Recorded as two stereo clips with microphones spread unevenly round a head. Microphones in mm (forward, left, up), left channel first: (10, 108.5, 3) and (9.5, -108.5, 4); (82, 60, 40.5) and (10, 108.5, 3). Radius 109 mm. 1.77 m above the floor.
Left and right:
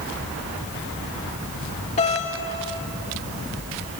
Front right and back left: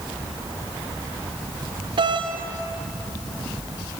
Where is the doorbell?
150° left, 2.5 m.